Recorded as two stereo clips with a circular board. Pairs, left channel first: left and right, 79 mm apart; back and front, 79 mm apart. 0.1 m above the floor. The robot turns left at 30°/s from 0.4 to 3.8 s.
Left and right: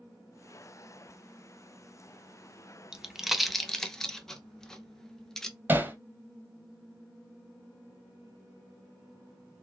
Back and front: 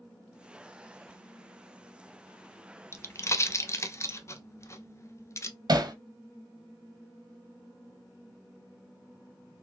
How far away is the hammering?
About 0.8 m.